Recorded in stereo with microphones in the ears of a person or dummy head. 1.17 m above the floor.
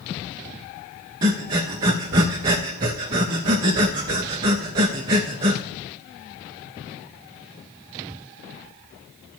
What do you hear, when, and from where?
1.2 s breathing: 25° right (ahead or behind), 0.5 m